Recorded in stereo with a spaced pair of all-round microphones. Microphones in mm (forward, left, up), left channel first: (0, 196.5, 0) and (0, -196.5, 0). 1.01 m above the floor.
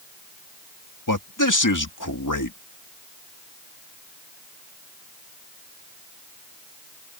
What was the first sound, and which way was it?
A man speaking, 50° left (ahead or behind).